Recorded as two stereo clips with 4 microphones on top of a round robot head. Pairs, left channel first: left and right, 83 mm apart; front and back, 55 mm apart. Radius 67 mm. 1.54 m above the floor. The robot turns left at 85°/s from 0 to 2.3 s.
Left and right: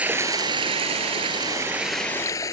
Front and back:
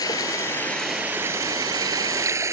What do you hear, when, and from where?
0.0 s running water: 15° right; by 2.5 s 150° left